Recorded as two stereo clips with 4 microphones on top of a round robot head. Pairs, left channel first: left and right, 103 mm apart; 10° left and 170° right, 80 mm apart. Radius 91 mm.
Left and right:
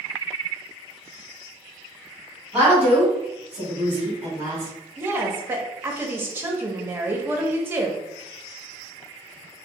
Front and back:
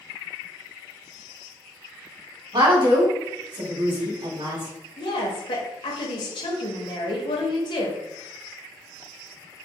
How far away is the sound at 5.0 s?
About 0.8 m.